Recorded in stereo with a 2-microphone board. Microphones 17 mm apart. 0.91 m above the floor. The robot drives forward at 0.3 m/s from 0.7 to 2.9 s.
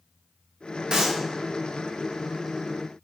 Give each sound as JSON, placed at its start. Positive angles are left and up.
{"t": 0.9, "sound": "a clap", "side_deg": -55, "distance_m": 1.1}